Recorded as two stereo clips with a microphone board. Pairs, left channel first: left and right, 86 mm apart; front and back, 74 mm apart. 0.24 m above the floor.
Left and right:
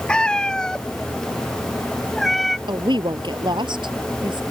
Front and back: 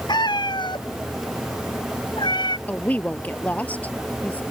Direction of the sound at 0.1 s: 10° left.